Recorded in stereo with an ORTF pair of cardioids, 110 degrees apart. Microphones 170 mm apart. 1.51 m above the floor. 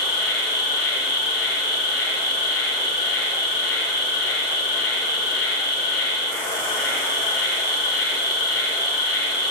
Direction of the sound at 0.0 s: 65° left.